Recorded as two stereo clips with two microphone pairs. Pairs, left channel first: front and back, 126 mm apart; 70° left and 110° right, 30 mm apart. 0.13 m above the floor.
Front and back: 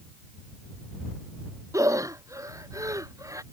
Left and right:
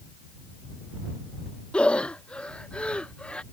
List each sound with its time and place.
1.7 s breathing: 120° left